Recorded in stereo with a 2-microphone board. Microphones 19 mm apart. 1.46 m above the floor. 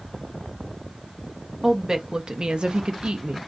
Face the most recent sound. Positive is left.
turn(degrees=-75)  # may be behind; listen again after turning